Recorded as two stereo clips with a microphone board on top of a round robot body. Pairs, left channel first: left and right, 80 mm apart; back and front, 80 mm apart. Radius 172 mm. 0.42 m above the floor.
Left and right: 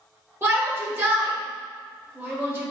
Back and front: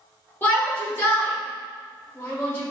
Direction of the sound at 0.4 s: 130° right.